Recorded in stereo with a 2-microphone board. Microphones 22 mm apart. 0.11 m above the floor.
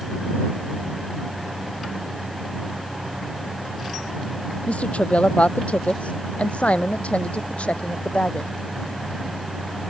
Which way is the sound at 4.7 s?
65° left (ahead or behind).